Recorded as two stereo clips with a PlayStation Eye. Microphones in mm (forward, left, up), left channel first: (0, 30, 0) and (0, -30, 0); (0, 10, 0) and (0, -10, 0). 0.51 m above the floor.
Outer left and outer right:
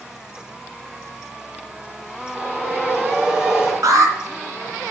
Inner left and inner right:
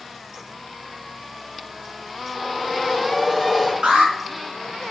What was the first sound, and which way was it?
A whoosh, 15° right (ahead or behind).